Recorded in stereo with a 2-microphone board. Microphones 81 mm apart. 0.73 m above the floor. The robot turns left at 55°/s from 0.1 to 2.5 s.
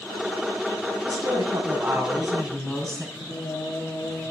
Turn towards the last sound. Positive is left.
turn(degrees=55)  # may be behind; listen again after turning